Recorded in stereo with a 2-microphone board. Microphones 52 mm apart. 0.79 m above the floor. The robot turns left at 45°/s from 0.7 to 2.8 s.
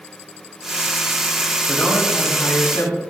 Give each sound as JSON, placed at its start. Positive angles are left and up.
{"t": 1.7, "sound": "a man speaking", "azimuth_deg": 150, "distance_m": 4.0}